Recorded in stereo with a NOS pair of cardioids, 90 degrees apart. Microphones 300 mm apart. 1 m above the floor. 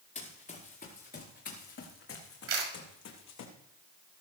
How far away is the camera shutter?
About 5.5 m.